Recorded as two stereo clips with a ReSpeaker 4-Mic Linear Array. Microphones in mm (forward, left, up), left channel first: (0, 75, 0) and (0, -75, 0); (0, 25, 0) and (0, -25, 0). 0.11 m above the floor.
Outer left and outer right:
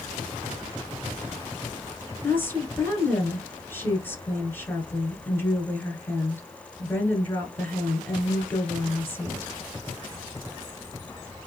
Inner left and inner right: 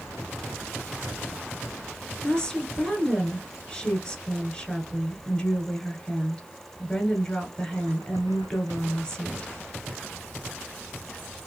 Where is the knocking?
I don't hear knocking.